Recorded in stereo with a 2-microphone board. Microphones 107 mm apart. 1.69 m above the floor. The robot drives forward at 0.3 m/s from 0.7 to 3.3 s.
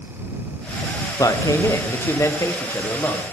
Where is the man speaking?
30° left (ahead or behind), 1.2 m; by 3.2 s 20° left (ahead or behind), 1.7 m.